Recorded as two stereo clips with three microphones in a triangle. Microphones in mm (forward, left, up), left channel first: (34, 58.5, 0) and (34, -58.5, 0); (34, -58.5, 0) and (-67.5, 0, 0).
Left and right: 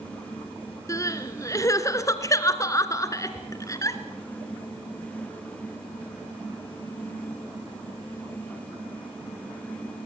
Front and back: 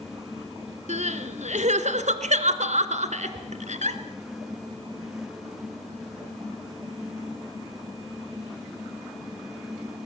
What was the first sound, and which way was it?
Crying, 150° left.